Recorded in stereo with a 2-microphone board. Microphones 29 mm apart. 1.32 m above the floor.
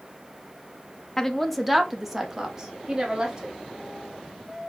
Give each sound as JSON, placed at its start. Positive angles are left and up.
{"t": 1.2, "sound": "a woman speaking", "side_deg": 15, "distance_m": 0.6}